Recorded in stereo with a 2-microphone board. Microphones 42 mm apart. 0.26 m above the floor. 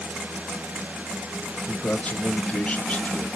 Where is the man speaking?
25° left (ahead or behind), 1.3 m.